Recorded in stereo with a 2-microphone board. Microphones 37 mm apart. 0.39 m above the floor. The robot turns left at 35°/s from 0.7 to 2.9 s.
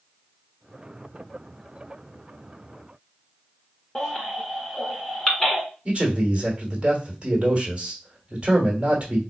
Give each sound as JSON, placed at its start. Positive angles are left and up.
{"t": 4.0, "sound": "a baby crying", "side_deg": 15, "distance_m": 1.3}
{"t": 5.8, "sound": "a man speaking", "side_deg": -30, "distance_m": 1.5}